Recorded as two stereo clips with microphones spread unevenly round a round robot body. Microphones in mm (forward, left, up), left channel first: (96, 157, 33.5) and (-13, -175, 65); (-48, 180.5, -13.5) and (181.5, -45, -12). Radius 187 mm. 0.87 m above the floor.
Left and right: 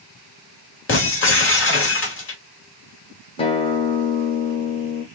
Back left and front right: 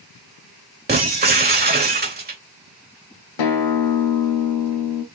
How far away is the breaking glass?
About 2.5 m.